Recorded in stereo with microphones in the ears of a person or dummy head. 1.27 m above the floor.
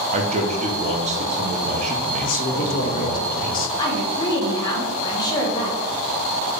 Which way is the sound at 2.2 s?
45° left (ahead or behind).